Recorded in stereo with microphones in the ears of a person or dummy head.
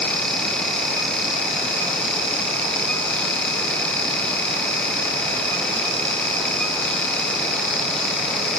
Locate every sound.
Only background noise.